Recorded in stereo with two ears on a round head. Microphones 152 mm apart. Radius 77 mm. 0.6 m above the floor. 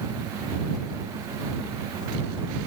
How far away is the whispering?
I don't hear whispering.